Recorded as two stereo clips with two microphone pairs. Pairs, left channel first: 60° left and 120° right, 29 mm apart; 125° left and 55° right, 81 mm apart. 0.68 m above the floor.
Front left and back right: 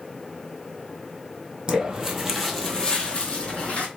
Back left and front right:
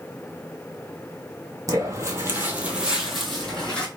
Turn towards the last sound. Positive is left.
turn(degrees=45)